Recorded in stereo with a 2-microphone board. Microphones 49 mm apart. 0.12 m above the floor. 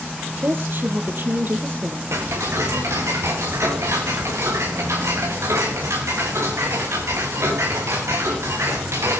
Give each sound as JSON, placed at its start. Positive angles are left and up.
{"t": 0.4, "sound": "a woman speaking", "side_deg": -50, "distance_m": 3.0}
{"t": 2.1, "sound": "ticking", "side_deg": -85, "distance_m": 3.0}